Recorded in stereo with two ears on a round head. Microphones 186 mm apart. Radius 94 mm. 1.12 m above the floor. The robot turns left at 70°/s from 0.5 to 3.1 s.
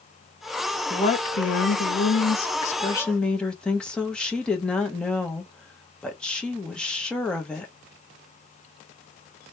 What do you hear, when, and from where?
0.9 s a woman speaking: 160° left, 0.8 m; by 7.7 s 5° left, 0.8 m